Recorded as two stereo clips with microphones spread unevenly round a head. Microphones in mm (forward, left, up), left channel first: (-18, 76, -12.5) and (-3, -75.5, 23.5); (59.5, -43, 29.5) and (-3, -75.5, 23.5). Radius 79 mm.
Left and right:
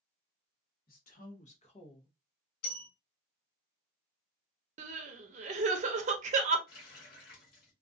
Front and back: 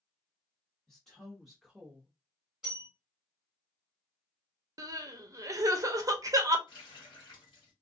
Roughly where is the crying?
Behind right.